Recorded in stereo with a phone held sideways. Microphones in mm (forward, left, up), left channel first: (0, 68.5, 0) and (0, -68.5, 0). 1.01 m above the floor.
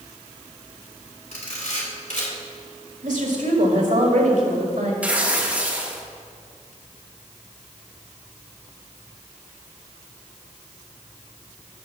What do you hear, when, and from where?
1.3 s a camera shutter: 70° left (ahead or behind), 3.5 m
3.0 s a woman speaking: 75° right (ahead or behind), 2 m
5.0 s tearing paper: 10° right (ahead or behind), 1.4 m